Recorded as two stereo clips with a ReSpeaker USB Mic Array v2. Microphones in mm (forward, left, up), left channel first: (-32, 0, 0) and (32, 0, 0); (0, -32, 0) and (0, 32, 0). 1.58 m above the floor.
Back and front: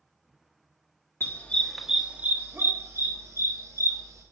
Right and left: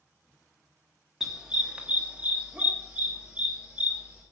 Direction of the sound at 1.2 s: 165° left.